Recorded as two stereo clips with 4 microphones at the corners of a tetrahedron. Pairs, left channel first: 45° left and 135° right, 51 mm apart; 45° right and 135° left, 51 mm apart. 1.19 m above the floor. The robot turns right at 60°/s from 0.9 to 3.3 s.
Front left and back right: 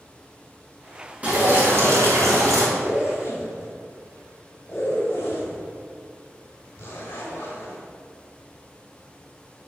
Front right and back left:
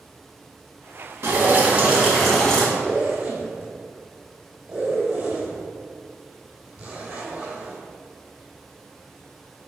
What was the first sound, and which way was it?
Dripping, 165° left.